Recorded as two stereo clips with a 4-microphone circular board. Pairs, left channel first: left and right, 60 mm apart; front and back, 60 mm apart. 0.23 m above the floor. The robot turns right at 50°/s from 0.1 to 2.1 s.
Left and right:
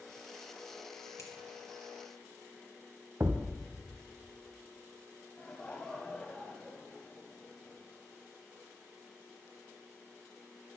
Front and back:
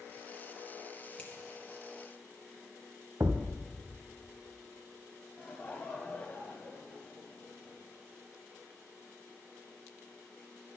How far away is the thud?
About 0.9 m.